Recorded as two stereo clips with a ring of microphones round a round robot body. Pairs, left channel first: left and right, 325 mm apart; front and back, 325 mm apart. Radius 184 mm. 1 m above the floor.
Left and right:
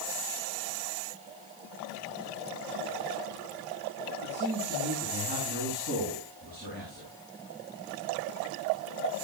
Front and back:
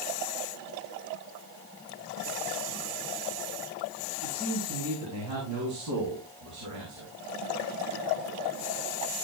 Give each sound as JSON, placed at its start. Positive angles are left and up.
{"t": 4.2, "sound": "a man speaking", "azimuth_deg": -140, "distance_m": 9.5}